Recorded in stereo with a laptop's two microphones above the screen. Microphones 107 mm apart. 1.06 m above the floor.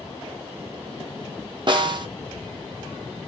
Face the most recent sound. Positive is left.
turn(degrees=-45)  # may be behind; listen again after turning